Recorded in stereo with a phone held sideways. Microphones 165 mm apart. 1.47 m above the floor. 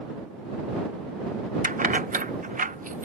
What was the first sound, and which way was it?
Keys jangling, 55° right (ahead or behind).